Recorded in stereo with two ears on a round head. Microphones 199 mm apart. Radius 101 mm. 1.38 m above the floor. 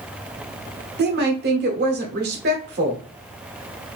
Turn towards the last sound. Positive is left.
turn(degrees=-45)  # may be behind; listen again after turning